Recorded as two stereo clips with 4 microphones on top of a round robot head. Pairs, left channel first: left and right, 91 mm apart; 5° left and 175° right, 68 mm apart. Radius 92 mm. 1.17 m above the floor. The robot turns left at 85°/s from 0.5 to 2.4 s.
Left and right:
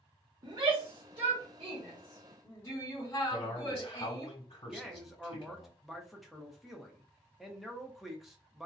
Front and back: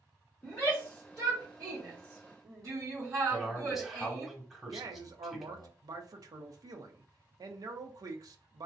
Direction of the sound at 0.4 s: 45° right.